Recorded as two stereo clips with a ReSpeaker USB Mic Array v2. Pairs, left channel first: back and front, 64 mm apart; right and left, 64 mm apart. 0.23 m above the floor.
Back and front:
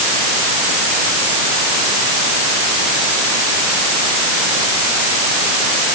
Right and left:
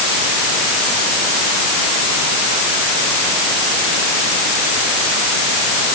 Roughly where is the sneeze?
No sneeze in this recording.